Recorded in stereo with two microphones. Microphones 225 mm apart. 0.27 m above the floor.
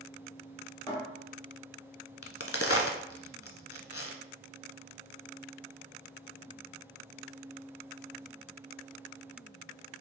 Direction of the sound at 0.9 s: 20° left (ahead or behind).